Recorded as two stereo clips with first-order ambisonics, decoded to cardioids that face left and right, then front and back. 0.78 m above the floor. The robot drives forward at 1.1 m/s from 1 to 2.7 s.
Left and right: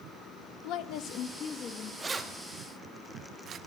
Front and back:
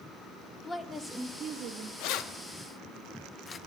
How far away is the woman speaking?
About 0.6 m.